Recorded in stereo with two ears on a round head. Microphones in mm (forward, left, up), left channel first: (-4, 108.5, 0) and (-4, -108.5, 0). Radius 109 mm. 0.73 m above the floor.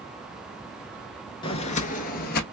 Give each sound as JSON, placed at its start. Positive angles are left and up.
{"t": 1.4, "sound": "footsteps", "side_deg": 20, "distance_m": 0.7}